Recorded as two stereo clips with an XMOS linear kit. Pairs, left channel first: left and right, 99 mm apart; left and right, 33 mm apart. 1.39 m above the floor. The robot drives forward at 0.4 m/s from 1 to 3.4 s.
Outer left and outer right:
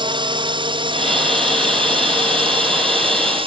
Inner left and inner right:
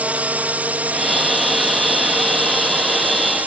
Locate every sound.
0.0 s a drone: 55° right (ahead or behind); by 3.5 s 65° right (ahead or behind)